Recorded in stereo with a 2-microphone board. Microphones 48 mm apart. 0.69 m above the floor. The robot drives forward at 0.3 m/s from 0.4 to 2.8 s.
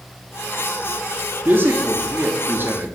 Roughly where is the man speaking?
Right.